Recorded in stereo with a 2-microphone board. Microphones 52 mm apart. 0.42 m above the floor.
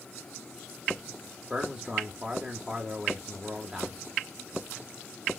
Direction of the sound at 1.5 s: 20° right (ahead or behind).